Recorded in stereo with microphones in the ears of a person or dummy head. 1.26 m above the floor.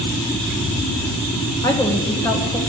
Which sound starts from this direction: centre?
A woman speaking, at 1.6 s.